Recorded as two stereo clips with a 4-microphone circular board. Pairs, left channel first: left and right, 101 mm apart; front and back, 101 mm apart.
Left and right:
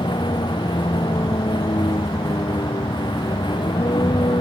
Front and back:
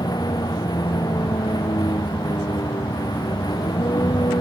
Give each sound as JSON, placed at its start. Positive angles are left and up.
{"t": 0.0, "sound": "a vehicle", "azimuth_deg": 50}